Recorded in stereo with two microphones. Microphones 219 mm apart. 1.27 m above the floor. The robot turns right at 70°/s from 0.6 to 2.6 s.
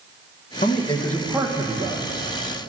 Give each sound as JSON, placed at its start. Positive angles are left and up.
{"t": 0.6, "sound": "a man speaking", "azimuth_deg": 135, "distance_m": 1.5}